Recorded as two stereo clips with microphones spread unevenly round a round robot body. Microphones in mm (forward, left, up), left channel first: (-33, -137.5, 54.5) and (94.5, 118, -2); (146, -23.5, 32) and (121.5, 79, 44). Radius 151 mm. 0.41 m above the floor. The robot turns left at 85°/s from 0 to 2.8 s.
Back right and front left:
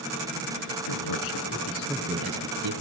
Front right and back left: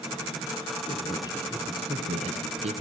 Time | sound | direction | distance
0.9 | a man speaking | 115° right | 6 m